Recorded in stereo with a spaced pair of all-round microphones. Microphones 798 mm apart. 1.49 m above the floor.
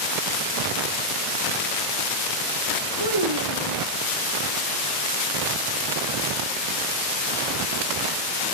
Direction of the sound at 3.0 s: 30° right (ahead or behind).